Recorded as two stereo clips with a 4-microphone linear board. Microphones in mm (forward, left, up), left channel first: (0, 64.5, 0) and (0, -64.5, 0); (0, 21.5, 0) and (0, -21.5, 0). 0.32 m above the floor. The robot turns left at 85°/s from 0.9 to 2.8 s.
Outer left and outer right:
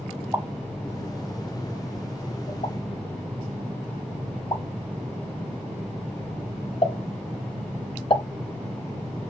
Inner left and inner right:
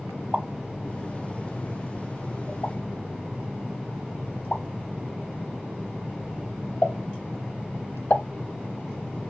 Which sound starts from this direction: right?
A pop, at 0.3 s.